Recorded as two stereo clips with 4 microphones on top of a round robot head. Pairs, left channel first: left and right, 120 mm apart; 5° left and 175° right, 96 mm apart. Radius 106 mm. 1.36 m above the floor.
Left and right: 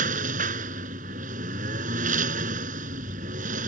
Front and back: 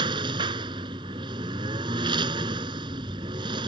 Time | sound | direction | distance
0.0 | a lawn mower | 120° right | ?